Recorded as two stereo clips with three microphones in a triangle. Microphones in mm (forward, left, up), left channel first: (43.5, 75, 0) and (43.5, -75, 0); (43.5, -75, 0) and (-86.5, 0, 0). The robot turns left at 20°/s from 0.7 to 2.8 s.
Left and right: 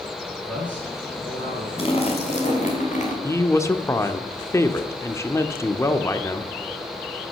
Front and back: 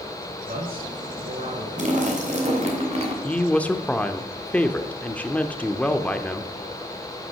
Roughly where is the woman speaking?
Ahead left.